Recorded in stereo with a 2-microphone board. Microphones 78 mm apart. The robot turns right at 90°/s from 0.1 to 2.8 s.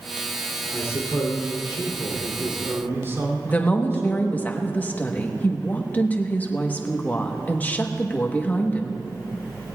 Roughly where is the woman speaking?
Left.